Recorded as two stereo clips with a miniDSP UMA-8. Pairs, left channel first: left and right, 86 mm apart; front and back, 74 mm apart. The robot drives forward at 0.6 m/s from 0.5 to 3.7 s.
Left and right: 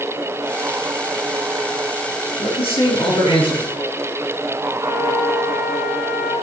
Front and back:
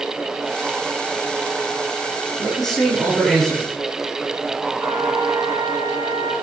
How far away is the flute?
About 3 m.